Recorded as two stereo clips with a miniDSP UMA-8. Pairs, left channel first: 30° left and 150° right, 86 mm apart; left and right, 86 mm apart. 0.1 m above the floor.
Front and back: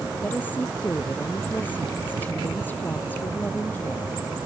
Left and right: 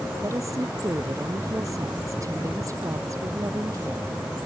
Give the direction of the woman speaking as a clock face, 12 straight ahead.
1 o'clock.